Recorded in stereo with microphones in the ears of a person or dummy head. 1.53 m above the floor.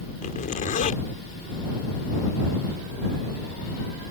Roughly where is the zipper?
Left.